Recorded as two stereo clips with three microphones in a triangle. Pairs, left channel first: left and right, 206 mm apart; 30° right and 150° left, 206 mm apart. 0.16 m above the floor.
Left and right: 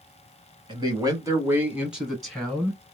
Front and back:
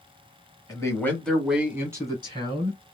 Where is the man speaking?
75° right, 1.2 m; by 2.8 s 165° left, 1.3 m.